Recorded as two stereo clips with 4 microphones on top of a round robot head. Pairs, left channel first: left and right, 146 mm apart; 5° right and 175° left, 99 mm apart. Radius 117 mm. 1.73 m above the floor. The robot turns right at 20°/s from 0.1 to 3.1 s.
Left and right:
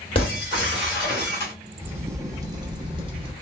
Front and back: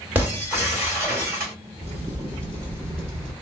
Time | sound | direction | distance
0.1 | breaking glass | 110° left | 1.6 m
1.8 | a crack | 165° right | 0.6 m